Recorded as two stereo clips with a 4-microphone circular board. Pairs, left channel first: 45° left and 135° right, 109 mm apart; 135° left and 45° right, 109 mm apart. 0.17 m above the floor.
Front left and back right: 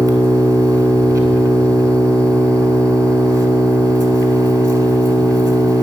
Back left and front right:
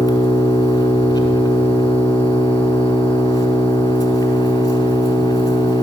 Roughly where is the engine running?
Behind.